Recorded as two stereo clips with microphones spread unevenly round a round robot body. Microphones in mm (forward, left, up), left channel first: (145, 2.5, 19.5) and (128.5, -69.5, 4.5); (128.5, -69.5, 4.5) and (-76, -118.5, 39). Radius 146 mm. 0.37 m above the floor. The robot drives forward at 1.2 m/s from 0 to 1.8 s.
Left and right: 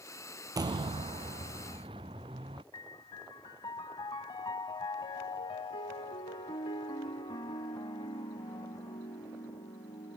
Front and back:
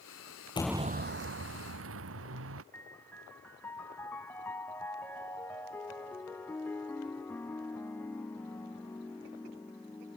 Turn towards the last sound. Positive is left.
turn(degrees=95)